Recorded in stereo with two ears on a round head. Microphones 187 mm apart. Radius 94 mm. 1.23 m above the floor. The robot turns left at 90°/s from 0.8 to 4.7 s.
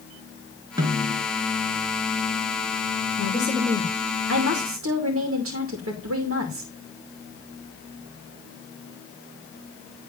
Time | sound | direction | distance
0.8 | a snare drum | 160° right | 3 m
3.2 | a woman speaking | 35° left | 2.5 m